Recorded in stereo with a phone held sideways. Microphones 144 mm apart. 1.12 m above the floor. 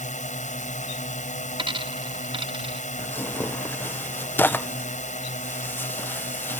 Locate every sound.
0.0 s a drone: 60° left (ahead or behind)
1.6 s a dropped coin: 35° right (ahead or behind)
3.0 s tearing paper: 15° left (ahead or behind)